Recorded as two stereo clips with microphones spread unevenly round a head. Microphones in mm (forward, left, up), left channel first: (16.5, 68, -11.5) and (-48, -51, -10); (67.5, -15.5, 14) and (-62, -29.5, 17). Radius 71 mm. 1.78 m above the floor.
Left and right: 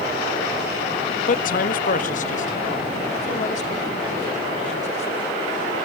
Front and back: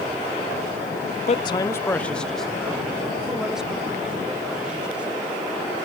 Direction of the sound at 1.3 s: 45° left.